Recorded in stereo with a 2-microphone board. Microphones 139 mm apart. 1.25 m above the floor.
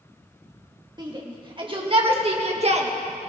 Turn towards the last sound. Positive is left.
turn(degrees=-50)  # may be behind; listen again after turning